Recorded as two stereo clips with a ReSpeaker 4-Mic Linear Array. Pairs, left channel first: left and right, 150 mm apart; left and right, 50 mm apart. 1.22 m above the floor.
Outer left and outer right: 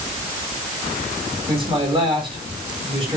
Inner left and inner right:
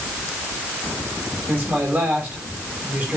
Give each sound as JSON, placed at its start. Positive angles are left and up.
{"t": 1.5, "sound": "a man speaking", "side_deg": -35, "distance_m": 6.0}